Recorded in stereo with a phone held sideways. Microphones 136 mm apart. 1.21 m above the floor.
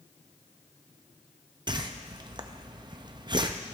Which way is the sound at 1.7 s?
35° right (ahead or behind).